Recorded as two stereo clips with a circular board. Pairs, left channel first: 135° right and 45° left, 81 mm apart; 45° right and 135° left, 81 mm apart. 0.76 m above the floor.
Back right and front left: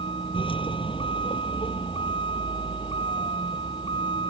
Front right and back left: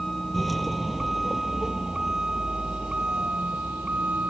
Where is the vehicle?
135° right; by 4.3 s 150° right.